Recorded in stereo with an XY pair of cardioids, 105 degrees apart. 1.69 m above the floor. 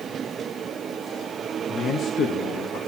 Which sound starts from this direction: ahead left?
A man speaking, at 1.7 s.